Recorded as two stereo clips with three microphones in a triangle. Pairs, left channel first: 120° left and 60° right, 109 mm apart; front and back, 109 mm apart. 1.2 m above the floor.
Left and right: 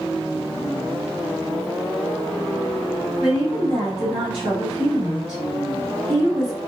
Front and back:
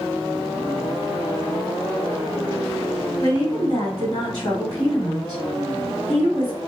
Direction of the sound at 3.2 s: 45° right.